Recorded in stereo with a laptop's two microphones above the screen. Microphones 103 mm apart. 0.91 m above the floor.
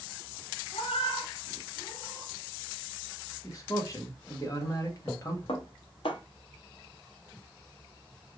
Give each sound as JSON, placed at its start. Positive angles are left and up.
{"t": 0.7, "sound": "a cat meowing", "side_deg": 75, "distance_m": 0.8}
{"t": 3.4, "sound": "a man speaking", "side_deg": 35, "distance_m": 1.1}
{"t": 5.5, "sound": "dishes clattering", "side_deg": 70, "distance_m": 0.8}